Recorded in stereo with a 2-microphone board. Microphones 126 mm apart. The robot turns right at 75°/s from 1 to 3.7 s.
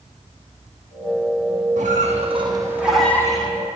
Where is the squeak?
90° right, 0.8 m; by 3.5 s 40° left, 0.8 m.